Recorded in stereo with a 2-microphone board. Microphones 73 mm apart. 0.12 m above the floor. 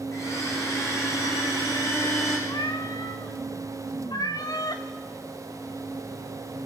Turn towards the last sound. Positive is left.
turn(degrees=60)  # may be behind; listen again after turning